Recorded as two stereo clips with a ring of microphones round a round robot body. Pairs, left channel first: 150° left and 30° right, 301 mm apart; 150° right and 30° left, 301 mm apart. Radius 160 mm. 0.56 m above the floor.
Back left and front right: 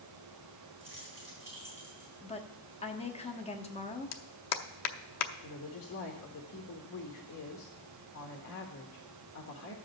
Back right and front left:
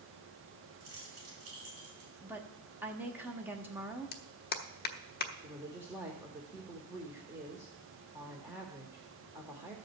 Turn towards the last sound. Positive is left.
turn(degrees=110)